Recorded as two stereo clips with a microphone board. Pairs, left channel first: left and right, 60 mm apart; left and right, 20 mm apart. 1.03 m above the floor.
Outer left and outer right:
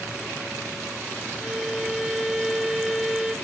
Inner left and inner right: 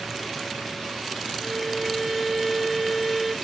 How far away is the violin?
About 0.9 m.